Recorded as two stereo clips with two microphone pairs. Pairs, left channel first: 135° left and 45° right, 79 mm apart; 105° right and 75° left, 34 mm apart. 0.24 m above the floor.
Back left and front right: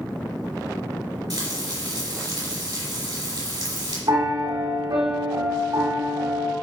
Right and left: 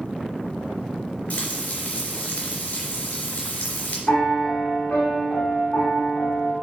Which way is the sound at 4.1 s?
60° right.